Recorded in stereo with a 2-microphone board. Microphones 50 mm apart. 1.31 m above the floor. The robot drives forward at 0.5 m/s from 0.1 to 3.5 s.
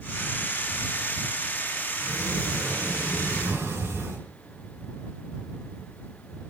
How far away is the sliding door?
About 8.5 m.